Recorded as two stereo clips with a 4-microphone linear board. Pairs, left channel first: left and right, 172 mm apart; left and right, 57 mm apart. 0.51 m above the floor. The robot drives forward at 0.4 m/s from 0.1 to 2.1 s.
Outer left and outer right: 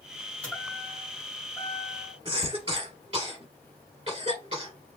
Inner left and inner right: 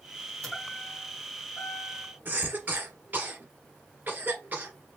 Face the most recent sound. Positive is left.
turn(degrees=-30)  # may be behind; listen again after turning